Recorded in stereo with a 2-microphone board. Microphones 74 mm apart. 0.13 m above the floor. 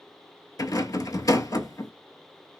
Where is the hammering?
I don't hear hammering.